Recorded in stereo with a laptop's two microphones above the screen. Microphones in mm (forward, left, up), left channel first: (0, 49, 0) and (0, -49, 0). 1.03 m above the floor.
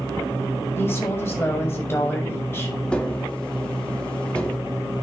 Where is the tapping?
10° left (ahead or behind), 2.5 m.